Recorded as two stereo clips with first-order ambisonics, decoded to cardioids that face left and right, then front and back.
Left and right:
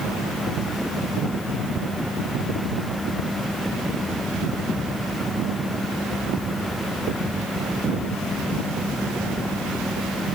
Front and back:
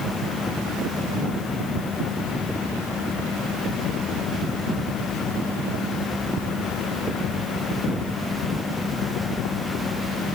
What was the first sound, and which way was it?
Only background noise.